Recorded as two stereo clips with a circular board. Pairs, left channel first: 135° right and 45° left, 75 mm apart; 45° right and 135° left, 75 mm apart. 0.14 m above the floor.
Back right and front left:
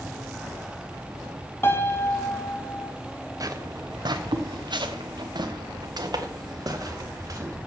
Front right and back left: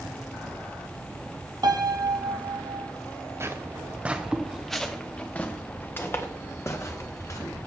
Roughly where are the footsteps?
Left.